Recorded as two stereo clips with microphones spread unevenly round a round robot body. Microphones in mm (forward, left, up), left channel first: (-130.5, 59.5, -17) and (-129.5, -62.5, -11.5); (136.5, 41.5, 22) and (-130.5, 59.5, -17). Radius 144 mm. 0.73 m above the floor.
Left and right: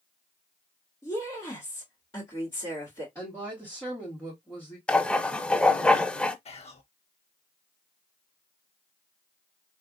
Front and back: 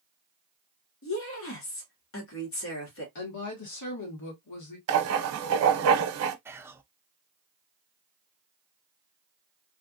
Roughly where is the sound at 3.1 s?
Ahead.